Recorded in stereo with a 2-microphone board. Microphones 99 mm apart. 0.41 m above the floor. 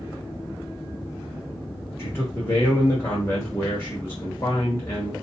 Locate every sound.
2.0 s a man speaking: 25° left (ahead or behind), 1.4 m